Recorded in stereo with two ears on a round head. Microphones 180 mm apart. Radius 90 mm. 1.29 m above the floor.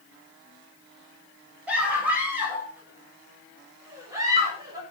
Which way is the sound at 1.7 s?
5° right (ahead or behind).